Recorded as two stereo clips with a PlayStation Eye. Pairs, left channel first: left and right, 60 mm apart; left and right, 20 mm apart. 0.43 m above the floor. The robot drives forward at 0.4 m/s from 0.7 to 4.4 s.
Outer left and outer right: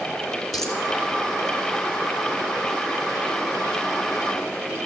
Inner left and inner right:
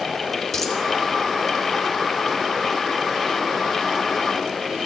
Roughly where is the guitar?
No guitar in this recording.